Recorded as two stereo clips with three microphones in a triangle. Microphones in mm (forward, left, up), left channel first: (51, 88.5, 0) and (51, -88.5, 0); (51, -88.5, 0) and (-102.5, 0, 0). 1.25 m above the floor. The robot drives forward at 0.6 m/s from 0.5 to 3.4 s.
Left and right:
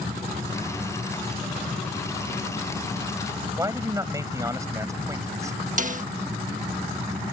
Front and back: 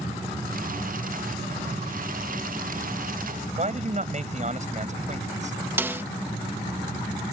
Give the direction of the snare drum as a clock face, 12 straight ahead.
4 o'clock.